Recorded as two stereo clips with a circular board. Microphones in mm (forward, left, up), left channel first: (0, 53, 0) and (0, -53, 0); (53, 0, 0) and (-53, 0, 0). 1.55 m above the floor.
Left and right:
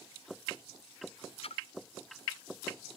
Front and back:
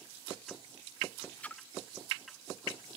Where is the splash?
75° left, 0.5 m.